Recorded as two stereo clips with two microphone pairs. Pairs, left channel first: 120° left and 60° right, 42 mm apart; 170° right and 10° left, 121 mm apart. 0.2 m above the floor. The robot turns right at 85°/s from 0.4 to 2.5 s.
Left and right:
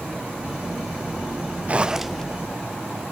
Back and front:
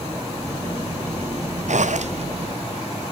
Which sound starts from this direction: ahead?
A zipper, at 1.7 s.